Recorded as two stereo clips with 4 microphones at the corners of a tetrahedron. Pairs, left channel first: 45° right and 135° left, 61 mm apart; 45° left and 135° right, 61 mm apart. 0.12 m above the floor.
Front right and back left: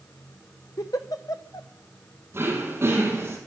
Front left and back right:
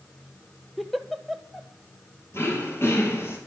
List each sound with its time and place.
0.8 s a giggle: 45° right, 0.7 m
2.3 s throat clearing: 85° left, 2.5 m